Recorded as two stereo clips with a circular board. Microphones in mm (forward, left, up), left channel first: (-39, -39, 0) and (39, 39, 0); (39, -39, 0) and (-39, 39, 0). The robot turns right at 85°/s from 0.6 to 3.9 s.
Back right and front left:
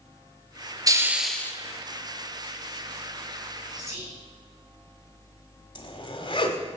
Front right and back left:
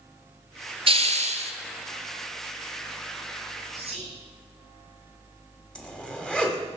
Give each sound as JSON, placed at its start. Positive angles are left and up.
{"t": 0.9, "sound": "a hiss", "azimuth_deg": 100, "distance_m": 0.9}
{"t": 3.8, "sound": "whispering", "azimuth_deg": 95, "distance_m": 3.5}
{"t": 5.8, "sound": "a zipper", "azimuth_deg": -125, "distance_m": 1.3}